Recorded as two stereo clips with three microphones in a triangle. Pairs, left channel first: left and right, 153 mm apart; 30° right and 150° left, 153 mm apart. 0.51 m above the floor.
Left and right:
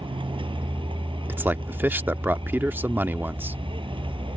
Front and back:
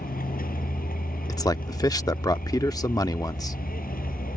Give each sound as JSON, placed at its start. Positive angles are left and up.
{"t": 0.0, "sound": "a vehicle", "azimuth_deg": -35}
{"t": 1.3, "sound": "a man speaking", "azimuth_deg": -30}